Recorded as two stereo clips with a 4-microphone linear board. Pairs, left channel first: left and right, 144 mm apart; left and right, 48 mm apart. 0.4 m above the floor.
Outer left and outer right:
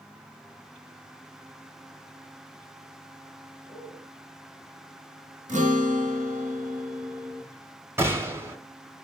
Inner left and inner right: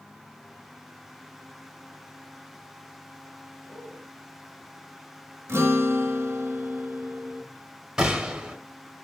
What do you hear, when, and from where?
3.7 s a man speaking: 35° left (ahead or behind), 2 m
5.5 s a guitar: 60° right (ahead or behind), 0.7 m
8.0 s a gunshot: 15° right (ahead or behind), 0.6 m